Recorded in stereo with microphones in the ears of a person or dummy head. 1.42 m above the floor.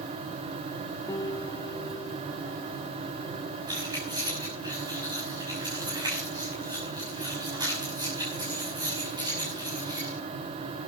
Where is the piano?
20° left (ahead or behind), 1.6 m.